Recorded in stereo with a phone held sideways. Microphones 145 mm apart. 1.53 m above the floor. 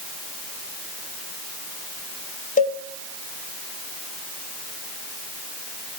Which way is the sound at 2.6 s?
70° left (ahead or behind).